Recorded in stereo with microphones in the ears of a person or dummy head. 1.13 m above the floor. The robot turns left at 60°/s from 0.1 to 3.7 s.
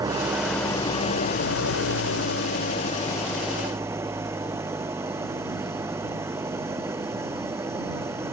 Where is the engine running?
165° right; by 8.3 s 20° right.